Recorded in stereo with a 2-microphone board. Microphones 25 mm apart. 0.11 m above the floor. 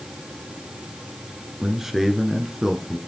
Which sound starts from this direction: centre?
A man speaking, at 1.6 s.